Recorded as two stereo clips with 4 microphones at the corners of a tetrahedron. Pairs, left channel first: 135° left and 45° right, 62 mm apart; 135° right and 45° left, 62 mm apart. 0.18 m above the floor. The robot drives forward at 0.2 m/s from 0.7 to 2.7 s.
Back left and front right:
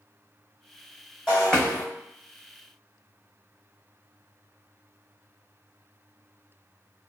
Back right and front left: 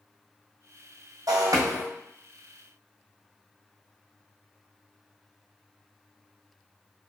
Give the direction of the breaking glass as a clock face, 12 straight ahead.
10 o'clock.